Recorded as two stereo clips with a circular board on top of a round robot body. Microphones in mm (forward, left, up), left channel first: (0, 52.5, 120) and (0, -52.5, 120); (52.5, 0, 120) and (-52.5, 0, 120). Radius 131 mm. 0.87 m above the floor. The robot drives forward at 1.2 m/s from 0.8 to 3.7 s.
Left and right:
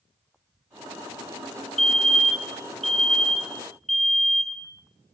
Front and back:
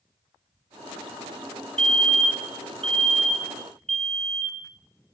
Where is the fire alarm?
175° left, 3.5 m.